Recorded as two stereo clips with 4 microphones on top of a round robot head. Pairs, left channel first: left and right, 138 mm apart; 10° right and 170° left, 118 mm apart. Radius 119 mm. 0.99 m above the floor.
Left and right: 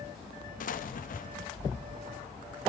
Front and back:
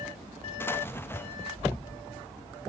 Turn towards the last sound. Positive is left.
turn(degrees=65)